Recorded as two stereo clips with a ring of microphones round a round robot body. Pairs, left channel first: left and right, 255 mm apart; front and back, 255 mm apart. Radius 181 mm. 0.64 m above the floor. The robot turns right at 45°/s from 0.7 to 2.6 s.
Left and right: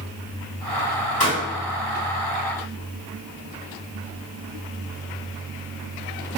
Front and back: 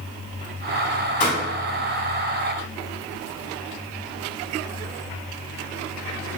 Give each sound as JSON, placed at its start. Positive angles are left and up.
{"t": 1.2, "sound": "a pop", "azimuth_deg": 35, "distance_m": 1.7}